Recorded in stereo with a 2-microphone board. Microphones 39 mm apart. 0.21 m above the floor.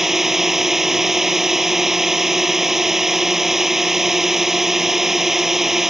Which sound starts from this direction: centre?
A drone, at 0.0 s.